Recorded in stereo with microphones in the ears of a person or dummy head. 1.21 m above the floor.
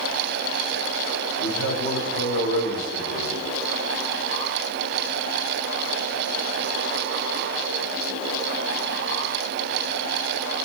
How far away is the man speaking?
About 3.5 m.